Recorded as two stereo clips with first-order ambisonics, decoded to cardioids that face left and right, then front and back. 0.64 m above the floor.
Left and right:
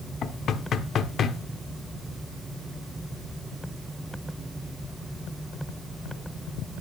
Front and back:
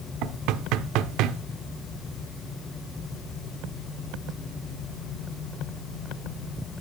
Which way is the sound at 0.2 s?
150° left.